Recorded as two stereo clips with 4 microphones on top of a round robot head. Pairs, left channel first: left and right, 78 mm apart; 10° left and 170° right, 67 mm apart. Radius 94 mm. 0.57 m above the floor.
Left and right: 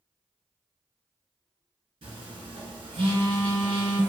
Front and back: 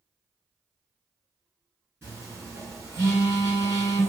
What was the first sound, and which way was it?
A phone buzzing, 115° right.